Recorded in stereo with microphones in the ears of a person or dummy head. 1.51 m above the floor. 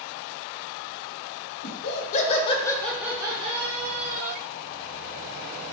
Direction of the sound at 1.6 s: 60° left (ahead or behind).